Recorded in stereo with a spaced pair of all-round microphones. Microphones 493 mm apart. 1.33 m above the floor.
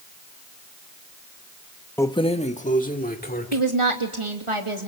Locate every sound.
2.0 s keys jangling: 5° left (ahead or behind), 0.7 m; by 3.6 s 20° left (ahead or behind), 2.5 m
3.5 s a woman speaking: 80° right, 3 m